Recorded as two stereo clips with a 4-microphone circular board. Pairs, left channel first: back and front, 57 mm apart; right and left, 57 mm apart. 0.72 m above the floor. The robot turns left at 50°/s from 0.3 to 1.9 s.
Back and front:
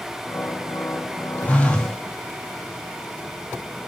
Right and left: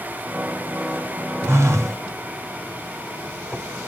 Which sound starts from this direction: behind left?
A phone buzzing, at 1.4 s.